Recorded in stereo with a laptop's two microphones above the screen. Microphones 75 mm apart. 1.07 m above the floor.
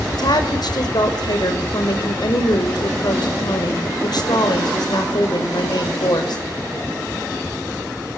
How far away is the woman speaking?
About 5.5 m.